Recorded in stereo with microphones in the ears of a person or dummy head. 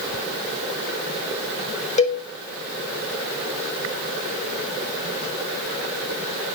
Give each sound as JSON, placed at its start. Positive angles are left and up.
{"t": 2.0, "sound": "a cowbell", "side_deg": 30, "distance_m": 1.5}